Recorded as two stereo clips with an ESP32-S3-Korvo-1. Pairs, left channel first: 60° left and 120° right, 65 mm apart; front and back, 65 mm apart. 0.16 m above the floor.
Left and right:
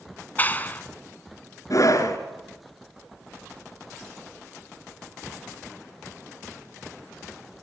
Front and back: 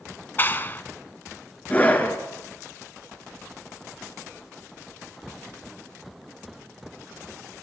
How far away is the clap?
About 0.9 m.